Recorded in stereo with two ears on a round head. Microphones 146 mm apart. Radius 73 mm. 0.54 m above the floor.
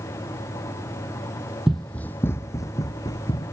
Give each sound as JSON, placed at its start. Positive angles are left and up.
{"t": 1.7, "sound": "running footsteps", "side_deg": 0}